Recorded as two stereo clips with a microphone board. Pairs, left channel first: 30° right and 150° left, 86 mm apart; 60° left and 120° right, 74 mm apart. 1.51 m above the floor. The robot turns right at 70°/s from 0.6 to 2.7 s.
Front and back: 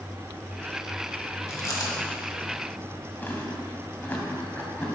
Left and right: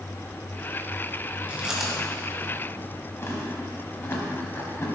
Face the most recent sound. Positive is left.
turn(degrees=25)